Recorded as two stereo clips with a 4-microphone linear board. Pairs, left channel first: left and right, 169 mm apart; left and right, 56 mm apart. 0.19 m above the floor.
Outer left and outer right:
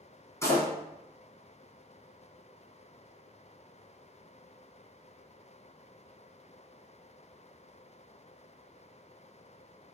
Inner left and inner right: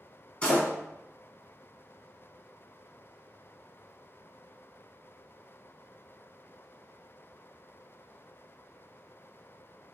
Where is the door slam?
20° left (ahead or behind), 1.3 m.